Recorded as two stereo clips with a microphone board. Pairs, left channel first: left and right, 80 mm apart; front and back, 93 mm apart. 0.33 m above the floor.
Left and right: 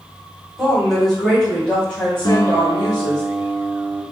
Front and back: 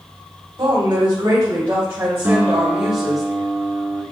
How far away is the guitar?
About 0.9 m.